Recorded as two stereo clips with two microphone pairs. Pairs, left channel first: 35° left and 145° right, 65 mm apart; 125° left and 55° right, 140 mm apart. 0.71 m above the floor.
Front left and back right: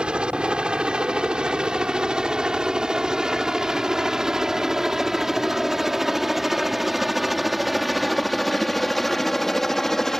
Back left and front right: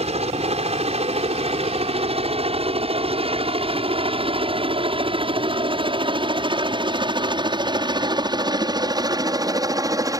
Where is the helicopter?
75° right; by 10.2 s 40° right.